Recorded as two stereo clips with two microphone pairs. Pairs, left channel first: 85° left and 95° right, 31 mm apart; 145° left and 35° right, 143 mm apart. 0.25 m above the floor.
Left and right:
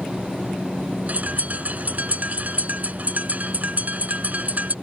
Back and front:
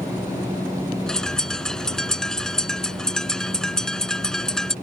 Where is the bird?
125° right.